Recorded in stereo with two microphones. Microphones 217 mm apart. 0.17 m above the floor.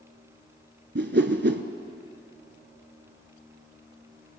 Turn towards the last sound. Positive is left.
turn(degrees=-50)  # may be behind; listen again after turning